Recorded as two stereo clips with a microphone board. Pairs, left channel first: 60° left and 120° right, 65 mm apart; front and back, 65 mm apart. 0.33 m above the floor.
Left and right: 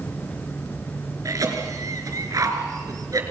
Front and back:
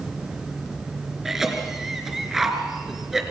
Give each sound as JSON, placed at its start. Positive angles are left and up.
{"t": 1.2, "sound": "a cough", "azimuth_deg": -95, "distance_m": 4.0}